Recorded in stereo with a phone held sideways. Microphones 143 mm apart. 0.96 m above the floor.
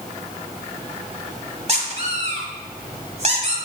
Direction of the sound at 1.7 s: 45° right (ahead or behind).